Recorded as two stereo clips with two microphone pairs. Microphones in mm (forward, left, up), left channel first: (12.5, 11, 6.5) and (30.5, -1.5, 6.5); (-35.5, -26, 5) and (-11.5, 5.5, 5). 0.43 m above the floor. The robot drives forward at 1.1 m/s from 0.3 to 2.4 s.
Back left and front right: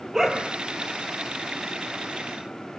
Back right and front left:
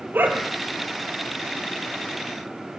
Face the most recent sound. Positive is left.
turn(degrees=55)